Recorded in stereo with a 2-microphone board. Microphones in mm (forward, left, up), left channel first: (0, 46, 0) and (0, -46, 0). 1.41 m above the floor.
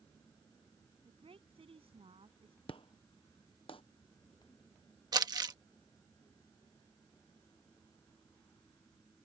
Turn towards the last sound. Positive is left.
turn(degrees=-45)  # may be behind; listen again after turning